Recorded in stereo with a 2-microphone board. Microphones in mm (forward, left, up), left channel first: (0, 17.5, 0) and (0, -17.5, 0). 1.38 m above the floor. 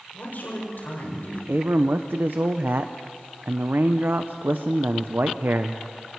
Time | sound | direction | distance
0.1 | a man speaking | 65° left (ahead or behind) | 7 m
1.5 | a man speaking | 75° right (ahead or behind) | 0.8 m